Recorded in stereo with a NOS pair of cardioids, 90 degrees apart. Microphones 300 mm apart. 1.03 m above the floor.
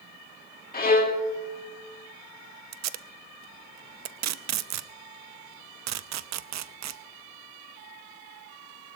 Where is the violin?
30° left, 2.5 m.